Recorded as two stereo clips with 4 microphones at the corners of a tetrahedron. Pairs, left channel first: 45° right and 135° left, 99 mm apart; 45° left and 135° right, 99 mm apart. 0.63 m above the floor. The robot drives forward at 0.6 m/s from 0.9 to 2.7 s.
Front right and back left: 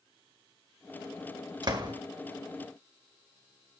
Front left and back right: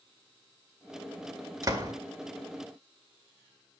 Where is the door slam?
175° left, 1.8 m.